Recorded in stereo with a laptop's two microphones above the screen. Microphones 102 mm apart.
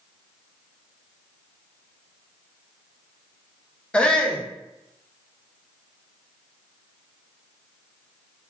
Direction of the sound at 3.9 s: 10° left (ahead or behind).